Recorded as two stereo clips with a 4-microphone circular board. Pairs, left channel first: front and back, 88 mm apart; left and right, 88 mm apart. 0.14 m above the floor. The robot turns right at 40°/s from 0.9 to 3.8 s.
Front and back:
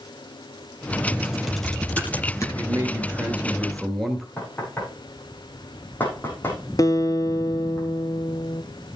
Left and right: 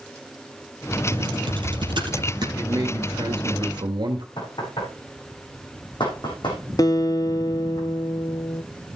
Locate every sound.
1.1 s typing on a keyboard: 105° right, 3.5 m; by 2.5 s 55° right, 3.5 m
2.5 s a man speaking: 140° right, 2.5 m; by 4.3 s 90° right, 2.5 m
4.4 s knocking: 70° left, 6 m
6.8 s a guitar: 45° left, 0.7 m